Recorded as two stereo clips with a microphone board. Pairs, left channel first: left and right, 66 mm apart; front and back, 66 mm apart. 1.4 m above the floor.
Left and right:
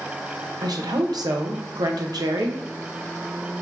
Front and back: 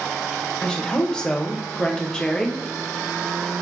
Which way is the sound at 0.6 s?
80° right.